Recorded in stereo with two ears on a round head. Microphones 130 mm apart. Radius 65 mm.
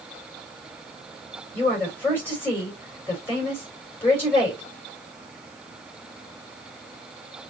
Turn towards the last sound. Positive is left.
turn(degrees=15)  # may be behind; listen again after turning